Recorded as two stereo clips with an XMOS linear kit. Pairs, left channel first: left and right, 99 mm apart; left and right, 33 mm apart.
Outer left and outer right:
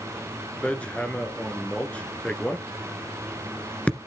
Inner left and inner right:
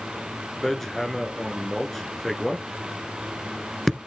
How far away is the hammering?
About 1.6 m.